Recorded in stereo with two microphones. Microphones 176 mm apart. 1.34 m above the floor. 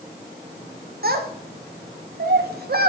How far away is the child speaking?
About 0.7 m.